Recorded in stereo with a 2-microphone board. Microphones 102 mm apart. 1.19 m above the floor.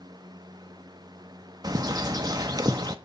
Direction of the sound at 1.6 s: 40° right (ahead or behind).